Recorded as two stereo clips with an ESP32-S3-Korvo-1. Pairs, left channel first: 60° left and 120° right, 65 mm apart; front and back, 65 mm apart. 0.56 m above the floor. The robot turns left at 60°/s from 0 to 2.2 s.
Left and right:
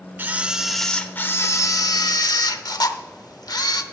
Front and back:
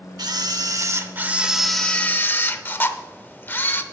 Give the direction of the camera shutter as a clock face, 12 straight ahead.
6 o'clock.